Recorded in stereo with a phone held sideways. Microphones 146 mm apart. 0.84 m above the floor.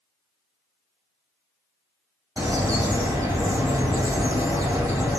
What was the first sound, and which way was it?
A bird, 20° right (ahead or behind).